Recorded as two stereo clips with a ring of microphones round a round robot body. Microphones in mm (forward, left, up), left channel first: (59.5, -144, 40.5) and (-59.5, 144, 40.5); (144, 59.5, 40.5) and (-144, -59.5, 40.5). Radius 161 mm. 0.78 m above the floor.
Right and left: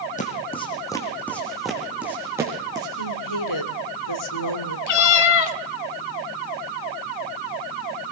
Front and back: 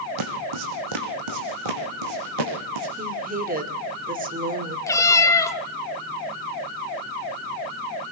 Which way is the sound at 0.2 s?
135° right.